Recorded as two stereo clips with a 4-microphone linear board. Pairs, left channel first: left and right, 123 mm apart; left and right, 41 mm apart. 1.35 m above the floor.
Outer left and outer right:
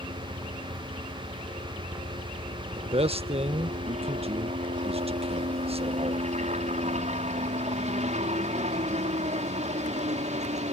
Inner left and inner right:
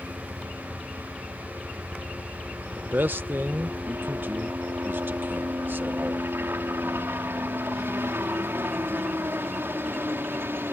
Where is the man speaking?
55° right (ahead or behind).